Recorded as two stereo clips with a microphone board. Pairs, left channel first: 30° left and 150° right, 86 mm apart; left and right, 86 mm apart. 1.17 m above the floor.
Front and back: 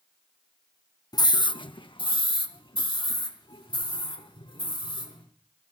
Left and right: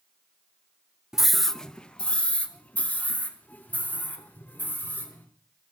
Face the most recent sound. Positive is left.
turn(degrees=25)